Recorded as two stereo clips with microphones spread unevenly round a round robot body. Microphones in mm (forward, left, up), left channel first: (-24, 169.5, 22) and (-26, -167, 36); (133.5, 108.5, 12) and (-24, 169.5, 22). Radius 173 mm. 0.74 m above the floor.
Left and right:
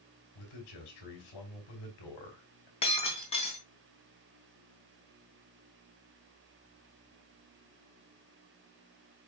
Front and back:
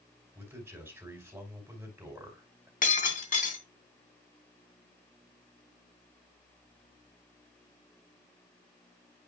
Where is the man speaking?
80° left, 5 m.